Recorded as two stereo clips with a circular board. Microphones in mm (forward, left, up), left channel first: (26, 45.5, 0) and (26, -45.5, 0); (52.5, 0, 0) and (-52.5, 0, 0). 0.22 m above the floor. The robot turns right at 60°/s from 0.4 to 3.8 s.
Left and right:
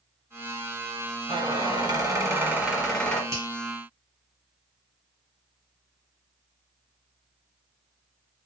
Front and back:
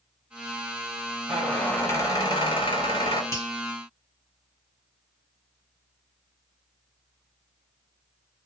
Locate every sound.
1.3 s a squeak: 90° right, 1.5 m; by 3.2 s 25° left, 1.5 m
3.3 s a finger snap: 50° right, 2 m; by 3.5 s 40° right, 2 m